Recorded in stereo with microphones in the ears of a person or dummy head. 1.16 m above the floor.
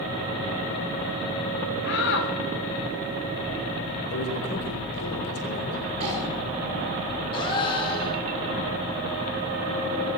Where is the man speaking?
60° left (ahead or behind), 3 m.